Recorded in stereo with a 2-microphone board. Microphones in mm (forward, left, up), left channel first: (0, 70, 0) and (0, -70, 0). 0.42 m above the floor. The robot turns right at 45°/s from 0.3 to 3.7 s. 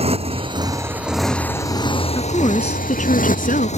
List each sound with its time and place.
0.0 s a motorcycle: 45° right (ahead or behind); by 3.8 s 55° left (ahead or behind)
2.1 s a woman speaking: 25° left; by 3.7 s 95° left